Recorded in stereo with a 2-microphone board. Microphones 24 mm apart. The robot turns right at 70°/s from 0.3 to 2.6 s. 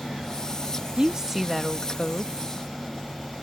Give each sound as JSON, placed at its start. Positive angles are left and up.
{"t": 1.0, "sound": "a woman speaking", "azimuth_deg": -40}